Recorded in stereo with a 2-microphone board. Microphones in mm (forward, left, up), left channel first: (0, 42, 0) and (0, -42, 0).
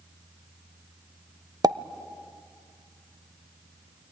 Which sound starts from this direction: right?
A pop, at 1.6 s.